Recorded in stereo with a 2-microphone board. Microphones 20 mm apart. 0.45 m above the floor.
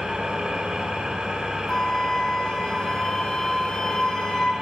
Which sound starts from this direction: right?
An engine running, at 0.0 s.